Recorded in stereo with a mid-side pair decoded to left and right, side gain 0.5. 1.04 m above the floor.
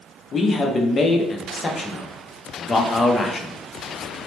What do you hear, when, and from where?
0.3 s a man speaking: 35° left, 0.7 m